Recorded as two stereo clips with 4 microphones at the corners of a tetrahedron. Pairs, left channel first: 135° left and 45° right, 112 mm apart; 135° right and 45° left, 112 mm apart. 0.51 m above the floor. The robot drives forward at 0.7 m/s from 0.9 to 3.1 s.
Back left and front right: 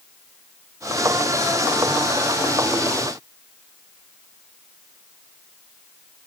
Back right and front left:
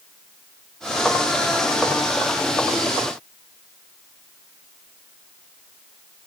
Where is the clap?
No clap in this recording.